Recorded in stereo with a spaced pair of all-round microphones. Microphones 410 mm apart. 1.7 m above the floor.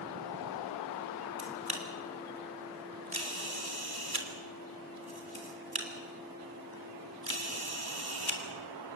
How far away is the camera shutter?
About 3 m.